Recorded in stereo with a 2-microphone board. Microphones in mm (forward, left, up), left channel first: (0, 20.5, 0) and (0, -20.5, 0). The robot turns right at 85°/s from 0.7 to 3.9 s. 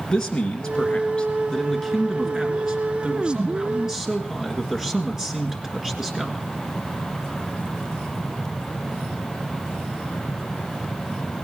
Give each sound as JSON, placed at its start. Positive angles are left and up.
{"t": 0.1, "sound": "a man speaking", "side_deg": 15, "distance_m": 1.7}